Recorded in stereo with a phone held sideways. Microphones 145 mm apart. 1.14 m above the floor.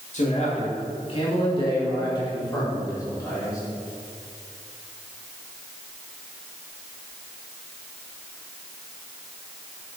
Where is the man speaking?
55° left (ahead or behind), 2.5 m; by 3.6 s 20° left (ahead or behind), 5 m.